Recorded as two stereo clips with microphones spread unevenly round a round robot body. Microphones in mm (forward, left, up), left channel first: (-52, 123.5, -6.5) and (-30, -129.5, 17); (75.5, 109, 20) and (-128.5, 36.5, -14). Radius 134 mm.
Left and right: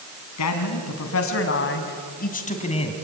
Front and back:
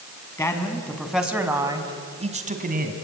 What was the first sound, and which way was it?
A man speaking, 100° left.